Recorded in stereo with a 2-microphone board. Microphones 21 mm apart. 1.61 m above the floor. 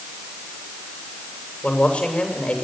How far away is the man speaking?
About 7.5 m.